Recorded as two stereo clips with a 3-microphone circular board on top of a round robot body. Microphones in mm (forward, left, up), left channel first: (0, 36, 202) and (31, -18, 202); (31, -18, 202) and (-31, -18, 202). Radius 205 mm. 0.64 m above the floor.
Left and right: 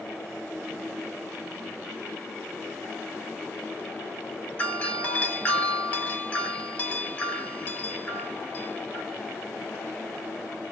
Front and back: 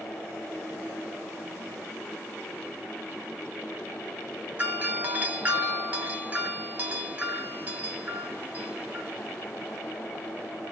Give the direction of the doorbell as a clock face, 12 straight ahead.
7 o'clock.